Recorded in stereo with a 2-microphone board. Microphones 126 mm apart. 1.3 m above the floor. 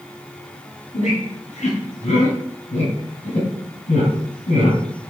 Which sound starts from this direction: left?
A squeak, at 0.9 s.